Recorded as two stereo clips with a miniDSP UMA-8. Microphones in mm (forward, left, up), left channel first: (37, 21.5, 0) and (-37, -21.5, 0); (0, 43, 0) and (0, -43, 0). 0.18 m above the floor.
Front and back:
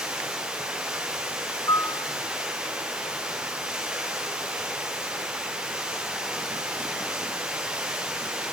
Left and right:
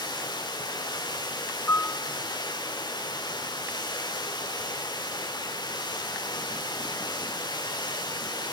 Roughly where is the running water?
Behind left.